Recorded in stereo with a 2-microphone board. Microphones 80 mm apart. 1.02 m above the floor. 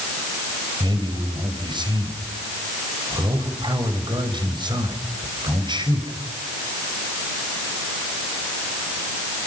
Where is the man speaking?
75° right (ahead or behind), 5.5 m.